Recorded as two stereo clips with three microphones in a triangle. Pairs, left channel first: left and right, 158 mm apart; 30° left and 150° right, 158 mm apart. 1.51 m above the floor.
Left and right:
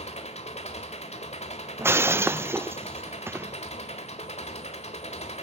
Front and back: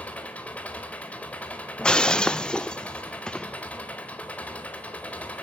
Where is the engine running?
110° left, 1.6 m.